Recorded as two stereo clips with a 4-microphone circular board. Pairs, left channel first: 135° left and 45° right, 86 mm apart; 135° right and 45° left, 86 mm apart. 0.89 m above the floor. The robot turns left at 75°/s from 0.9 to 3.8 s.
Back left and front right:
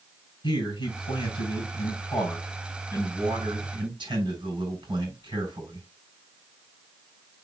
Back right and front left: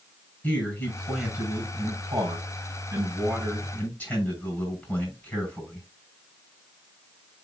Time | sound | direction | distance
0.4 | a man speaking | 155° left | 6 m